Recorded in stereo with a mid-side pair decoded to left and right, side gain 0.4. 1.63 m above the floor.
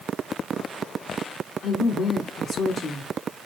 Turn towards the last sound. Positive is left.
turn(degrees=60)